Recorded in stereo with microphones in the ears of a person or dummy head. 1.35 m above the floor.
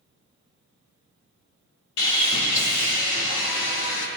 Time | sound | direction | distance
2.0 | sawing | 70° left (ahead or behind) | 2 m